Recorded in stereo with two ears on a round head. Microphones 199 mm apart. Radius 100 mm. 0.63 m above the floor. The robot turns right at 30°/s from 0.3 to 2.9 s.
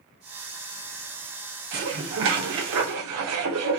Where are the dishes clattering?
130° right, 0.8 m; by 3.8 s 95° right, 0.8 m.